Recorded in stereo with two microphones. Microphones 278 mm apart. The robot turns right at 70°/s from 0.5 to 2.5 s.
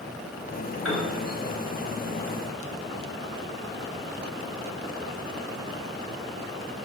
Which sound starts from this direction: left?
A piano, at 0.8 s.